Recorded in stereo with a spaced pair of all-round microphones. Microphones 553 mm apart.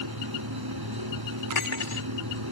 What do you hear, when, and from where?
0.0 s a fan: 40° right (ahead or behind)
1.5 s cutlery clinking: 60° left (ahead or behind)